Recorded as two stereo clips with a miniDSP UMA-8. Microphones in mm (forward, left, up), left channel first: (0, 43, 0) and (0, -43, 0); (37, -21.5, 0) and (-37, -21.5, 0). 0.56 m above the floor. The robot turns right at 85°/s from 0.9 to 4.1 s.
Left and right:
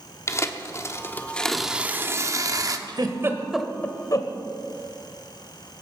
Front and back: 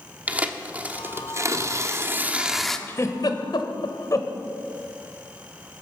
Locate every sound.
0.3 s tearing paper: 120° left, 1.1 m; by 2.8 s 80° right, 1.1 m
2.9 s a giggle: 60° right, 1.3 m; by 4.3 s 45° left, 1.3 m